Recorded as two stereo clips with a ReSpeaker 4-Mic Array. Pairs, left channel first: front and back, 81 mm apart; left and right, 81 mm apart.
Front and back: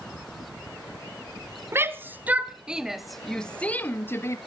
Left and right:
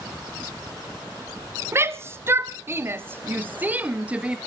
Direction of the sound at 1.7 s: 135° right.